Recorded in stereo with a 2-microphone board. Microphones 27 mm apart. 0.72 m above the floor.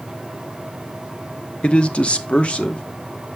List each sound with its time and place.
1.6 s a man speaking: 40° left (ahead or behind), 0.7 m